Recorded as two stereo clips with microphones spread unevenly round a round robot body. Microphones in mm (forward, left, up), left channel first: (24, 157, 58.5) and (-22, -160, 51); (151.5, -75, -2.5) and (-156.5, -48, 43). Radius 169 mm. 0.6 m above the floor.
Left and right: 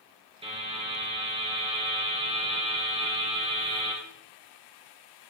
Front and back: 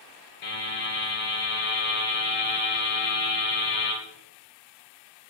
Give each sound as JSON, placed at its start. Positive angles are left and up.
{"t": 0.4, "sound": "a buzzer", "azimuth_deg": -25, "distance_m": 3.0}